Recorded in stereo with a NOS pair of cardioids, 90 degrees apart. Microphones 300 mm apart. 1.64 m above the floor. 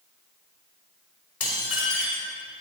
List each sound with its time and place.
1.4 s dishes clattering: 50° left, 6 m